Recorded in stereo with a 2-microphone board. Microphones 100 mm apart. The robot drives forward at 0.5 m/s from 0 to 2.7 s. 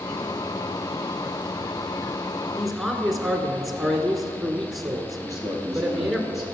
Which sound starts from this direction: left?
A man speaking, at 5.2 s.